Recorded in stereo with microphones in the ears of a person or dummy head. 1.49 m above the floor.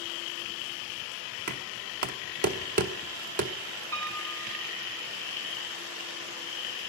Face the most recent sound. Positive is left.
turn(degrees=-75)  # may be behind; listen again after turning